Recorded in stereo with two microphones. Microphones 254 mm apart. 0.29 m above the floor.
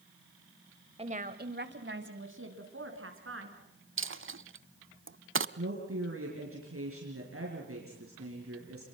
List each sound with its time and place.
1.0 s a woman speaking: 25° right (ahead or behind), 1.3 m; by 3.6 s 55° right (ahead or behind), 4.5 m
4.0 s a dropped coin: 55° right (ahead or behind), 0.6 m
5.6 s a woman speaking: 60° right (ahead or behind), 5 m